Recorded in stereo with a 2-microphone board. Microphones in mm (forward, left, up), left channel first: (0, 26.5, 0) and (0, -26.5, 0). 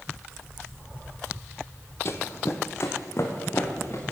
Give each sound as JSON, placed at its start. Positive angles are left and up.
{"t": 2.0, "sound": "running footsteps", "side_deg": 50, "distance_m": 0.8}